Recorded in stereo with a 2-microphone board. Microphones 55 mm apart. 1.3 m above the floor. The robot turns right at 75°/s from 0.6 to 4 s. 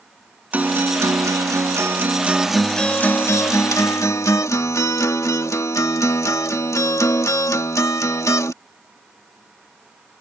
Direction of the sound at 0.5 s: 150° right.